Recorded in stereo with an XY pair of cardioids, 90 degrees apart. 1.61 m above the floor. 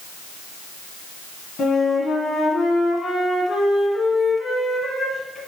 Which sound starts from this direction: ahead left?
A flute, at 1.6 s.